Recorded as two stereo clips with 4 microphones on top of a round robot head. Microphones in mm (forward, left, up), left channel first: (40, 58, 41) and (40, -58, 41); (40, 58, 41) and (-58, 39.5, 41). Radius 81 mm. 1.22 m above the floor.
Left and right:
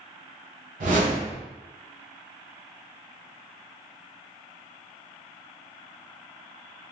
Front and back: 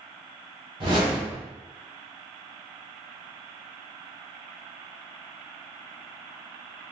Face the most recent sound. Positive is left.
turn(degrees=-115)